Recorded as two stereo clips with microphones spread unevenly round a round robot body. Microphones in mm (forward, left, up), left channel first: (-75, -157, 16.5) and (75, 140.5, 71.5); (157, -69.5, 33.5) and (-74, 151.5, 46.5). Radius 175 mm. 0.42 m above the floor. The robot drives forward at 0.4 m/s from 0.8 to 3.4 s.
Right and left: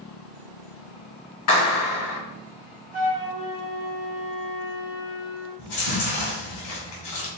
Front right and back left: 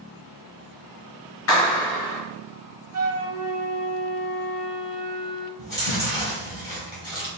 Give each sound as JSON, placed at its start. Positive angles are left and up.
{"t": 1.5, "sound": "a clap", "azimuth_deg": -90, "distance_m": 2.0}
{"t": 2.9, "sound": "a flute", "azimuth_deg": 130, "distance_m": 1.4}
{"t": 5.6, "sound": "chewing", "azimuth_deg": -150, "distance_m": 2.5}